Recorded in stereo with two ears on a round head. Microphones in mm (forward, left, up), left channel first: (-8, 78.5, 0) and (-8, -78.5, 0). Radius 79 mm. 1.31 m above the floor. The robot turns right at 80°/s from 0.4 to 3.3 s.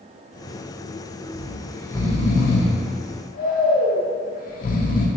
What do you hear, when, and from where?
1.3 s snoring: 30° right (ahead or behind), 0.5 m; by 5.1 s 50° left (ahead or behind), 0.5 m